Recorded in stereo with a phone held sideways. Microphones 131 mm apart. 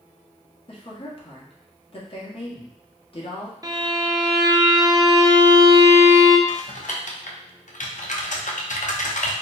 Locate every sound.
0.7 s a woman speaking: 45° left (ahead or behind), 1.2 m
3.6 s a violin: 30° right (ahead or behind), 0.5 m
6.5 s typing on a keyboard: 70° left (ahead or behind), 0.6 m